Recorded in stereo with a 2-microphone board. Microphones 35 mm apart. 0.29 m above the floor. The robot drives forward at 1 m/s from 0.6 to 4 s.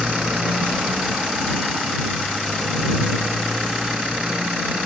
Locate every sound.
0.0 s a motorcycle: 30° right (ahead or behind); by 4.9 s 35° right (ahead or behind)